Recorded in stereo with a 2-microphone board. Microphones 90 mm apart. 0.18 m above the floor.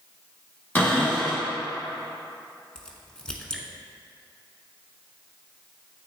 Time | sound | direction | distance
0.8 | a cupboard door | 20° left (ahead or behind) | 1.6 m
2.8 | a crack | 10° left (ahead or behind) | 0.8 m